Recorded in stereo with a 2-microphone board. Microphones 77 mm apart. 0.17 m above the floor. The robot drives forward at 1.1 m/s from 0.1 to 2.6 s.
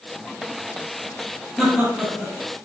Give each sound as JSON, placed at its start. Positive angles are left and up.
{"t": 1.6, "sound": "laughter", "side_deg": 0, "distance_m": 4.0}